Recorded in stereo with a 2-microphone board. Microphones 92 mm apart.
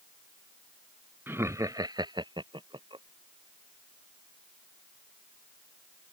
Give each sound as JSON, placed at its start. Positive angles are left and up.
{"t": 1.3, "sound": "laughter", "side_deg": -25}